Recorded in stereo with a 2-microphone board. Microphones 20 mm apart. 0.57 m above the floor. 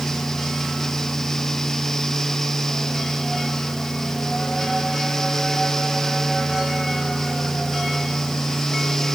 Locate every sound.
Only background noise.